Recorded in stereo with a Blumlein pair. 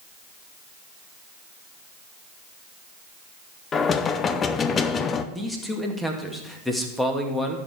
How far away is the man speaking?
About 2 m.